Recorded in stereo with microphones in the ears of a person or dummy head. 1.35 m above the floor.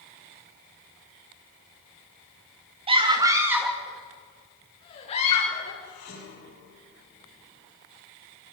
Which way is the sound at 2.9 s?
30° right (ahead or behind).